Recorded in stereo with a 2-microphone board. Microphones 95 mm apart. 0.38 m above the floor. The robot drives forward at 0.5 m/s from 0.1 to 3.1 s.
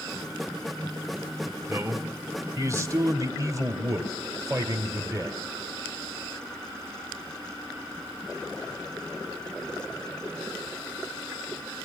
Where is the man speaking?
30° right (ahead or behind), 2 m; by 5.4 s 35° right (ahead or behind), 1.8 m.